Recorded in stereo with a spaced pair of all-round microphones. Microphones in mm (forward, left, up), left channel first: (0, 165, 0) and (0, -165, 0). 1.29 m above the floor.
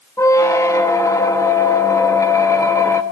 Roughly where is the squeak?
Centre.